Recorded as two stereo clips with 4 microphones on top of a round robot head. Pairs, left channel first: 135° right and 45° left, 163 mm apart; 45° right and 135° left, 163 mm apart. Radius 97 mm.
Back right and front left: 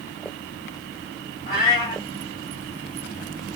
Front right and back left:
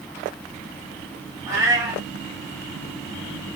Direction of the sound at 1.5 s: 170° right.